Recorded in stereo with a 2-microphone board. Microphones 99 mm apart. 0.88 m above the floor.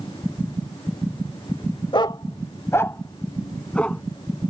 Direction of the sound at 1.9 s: 55° left (ahead or behind).